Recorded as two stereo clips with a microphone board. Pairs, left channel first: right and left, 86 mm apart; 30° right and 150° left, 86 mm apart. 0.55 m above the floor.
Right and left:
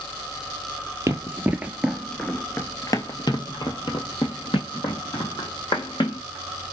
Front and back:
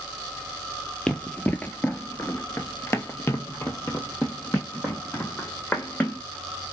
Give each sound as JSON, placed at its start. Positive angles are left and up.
{"t": 1.1, "sound": "running footsteps", "azimuth_deg": 45, "distance_m": 0.8}